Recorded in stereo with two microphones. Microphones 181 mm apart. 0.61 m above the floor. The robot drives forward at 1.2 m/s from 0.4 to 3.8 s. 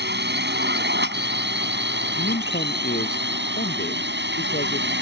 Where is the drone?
70° right (ahead or behind); by 5.0 s 75° right (ahead or behind).